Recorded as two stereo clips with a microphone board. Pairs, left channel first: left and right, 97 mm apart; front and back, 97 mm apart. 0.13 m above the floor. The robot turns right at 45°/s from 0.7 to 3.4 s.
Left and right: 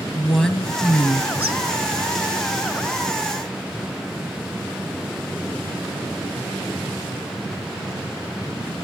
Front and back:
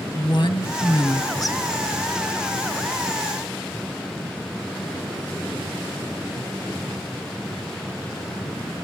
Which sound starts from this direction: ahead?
A woman speaking, at 0.1 s.